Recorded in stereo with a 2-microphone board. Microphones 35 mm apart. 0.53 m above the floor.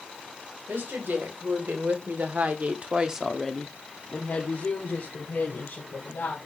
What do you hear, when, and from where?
0.7 s a woman speaking: 75° right (ahead or behind), 3 m; by 6.4 s 75° left (ahead or behind), 3 m